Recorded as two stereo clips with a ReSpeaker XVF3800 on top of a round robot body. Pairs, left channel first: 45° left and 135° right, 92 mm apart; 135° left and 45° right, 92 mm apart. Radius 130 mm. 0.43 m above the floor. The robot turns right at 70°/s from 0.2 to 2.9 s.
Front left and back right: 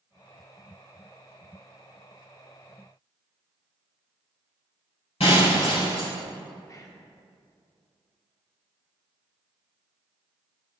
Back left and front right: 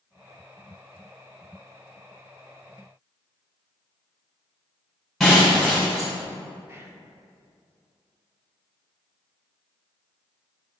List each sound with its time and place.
5.2 s breaking glass: 45° left, 3 m
6.7 s whispering: 5° left, 1.5 m